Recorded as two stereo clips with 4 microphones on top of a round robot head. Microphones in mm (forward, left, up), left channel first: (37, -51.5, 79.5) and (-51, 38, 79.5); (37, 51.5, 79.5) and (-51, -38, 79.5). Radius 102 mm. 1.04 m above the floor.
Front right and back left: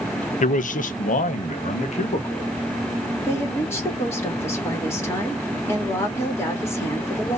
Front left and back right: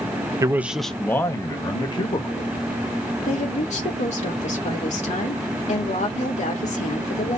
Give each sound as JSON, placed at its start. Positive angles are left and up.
{"t": 0.4, "sound": "a man speaking", "azimuth_deg": -70, "distance_m": 0.6}
{"t": 3.3, "sound": "a woman speaking", "azimuth_deg": 25, "distance_m": 2.5}